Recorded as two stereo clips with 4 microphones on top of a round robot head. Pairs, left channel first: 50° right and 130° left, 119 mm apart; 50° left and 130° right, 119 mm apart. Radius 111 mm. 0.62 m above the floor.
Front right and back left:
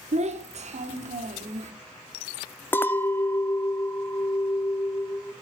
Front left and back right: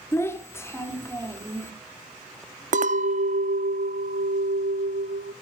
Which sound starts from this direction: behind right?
A clink, at 2.7 s.